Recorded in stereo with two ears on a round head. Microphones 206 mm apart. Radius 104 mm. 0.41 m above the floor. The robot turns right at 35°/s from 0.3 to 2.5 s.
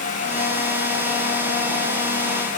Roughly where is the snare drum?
I don't hear a snare drum.